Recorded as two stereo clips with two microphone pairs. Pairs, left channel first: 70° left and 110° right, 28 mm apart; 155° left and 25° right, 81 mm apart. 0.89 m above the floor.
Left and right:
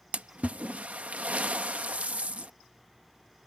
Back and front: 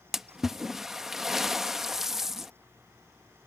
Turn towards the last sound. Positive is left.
turn(degrees=-110)